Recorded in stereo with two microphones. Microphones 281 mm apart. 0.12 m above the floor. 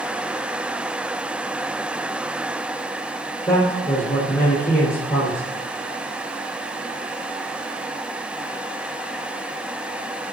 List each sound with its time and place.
3.5 s a man speaking: 25° left (ahead or behind), 2.5 m